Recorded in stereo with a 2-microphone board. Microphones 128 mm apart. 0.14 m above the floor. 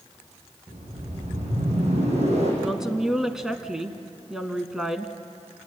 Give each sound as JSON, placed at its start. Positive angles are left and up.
{"t": 0.7, "sound": "a whoosh", "side_deg": -60, "distance_m": 7.5}
{"t": 2.6, "sound": "a woman speaking", "side_deg": -5, "distance_m": 1.5}